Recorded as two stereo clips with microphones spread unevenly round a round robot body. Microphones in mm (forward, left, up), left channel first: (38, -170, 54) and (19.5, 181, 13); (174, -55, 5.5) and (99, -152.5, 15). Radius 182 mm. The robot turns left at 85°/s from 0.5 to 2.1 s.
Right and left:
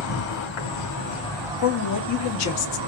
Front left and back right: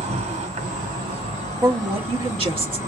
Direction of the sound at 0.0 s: 100° right.